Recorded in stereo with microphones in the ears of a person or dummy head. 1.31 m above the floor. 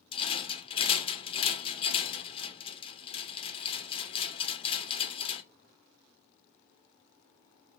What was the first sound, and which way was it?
A rattle, 30° left (ahead or behind).